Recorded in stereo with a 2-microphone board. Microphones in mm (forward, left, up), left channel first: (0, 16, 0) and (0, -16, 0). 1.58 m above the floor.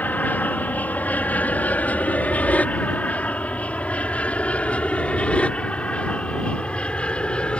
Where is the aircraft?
55° left (ahead or behind); by 7.6 s 30° left (ahead or behind).